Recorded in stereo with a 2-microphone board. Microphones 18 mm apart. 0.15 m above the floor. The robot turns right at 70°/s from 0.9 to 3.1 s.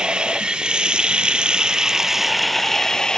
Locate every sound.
0.0 s running water: 110° right, 1.4 m; by 3.2 s 45° left, 1.4 m